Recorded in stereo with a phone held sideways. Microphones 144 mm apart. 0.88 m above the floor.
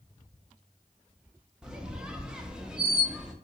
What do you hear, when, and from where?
1.6 s a squeak: 5° right (ahead or behind), 0.5 m